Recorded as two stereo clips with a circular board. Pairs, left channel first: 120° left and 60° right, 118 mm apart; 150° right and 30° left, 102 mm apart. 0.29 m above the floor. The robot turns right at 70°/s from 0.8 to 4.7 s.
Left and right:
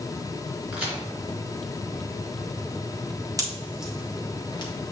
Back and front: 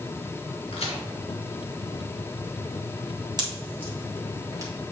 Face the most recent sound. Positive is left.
turn(degrees=85)